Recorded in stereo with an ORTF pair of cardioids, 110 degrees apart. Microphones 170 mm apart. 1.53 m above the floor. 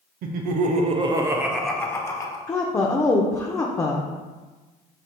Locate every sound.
0.2 s laughter: 65° right, 0.7 m; by 2.4 s 25° left, 0.8 m
2.5 s a woman speaking: 15° left, 0.5 m